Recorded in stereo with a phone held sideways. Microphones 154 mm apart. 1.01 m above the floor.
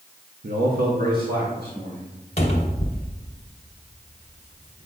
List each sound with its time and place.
0.4 s a man speaking: 70° right (ahead or behind), 0.8 m; by 2.1 s 80° right, 2.5 m
2.4 s a cupboard door: 45° left (ahead or behind), 1.1 m